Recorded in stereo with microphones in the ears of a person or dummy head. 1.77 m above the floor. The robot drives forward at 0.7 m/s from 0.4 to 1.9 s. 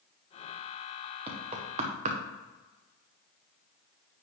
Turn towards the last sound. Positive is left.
turn(degrees=-40)  # may be behind; listen again after turning